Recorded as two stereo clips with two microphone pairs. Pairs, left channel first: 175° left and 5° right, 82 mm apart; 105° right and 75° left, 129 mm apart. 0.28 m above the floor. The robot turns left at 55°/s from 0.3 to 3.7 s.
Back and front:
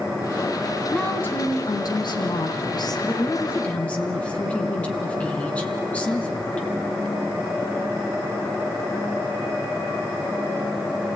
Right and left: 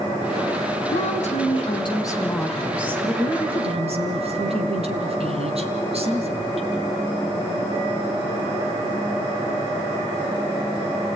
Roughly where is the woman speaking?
Right.